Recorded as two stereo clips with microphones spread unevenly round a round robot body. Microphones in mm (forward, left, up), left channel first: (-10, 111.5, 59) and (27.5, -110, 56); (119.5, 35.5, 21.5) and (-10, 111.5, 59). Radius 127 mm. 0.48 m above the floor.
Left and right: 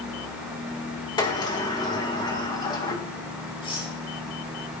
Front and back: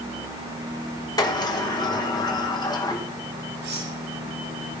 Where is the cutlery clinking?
170° left, 8.5 m.